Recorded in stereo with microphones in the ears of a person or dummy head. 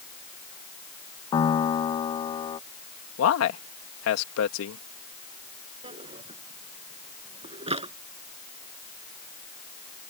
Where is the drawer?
30° right (ahead or behind).